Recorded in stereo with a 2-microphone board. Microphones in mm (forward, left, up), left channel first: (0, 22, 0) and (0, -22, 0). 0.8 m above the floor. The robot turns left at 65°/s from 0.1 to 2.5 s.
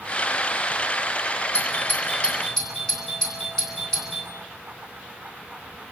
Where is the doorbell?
70° left (ahead or behind), 8.5 m; by 4.3 s 10° left (ahead or behind), 8.5 m.